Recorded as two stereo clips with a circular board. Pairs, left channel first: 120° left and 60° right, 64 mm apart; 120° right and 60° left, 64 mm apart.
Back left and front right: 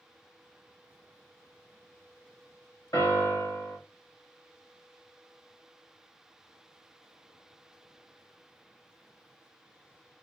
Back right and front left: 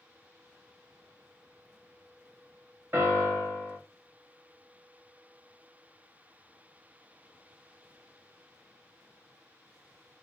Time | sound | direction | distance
2.9 | a piano | 105° left | 1.3 m